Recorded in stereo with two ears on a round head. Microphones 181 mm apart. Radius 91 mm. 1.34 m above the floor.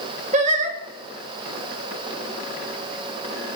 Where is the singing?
35° right (ahead or behind), 1.6 m.